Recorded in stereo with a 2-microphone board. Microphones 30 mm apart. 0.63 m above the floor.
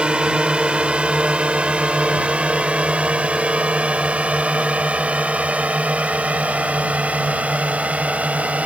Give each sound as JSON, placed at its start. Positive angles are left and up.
{"t": 0.0, "sound": "a drone", "side_deg": -30}